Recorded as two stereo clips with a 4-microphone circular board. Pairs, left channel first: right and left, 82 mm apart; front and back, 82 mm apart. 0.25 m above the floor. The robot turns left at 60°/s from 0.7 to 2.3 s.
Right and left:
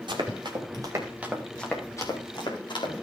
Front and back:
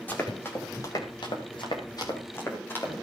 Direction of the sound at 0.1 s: 70° left.